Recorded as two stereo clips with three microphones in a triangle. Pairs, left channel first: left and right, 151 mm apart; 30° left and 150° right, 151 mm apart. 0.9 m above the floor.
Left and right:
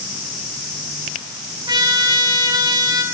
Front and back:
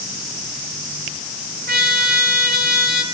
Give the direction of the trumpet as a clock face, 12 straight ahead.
5 o'clock.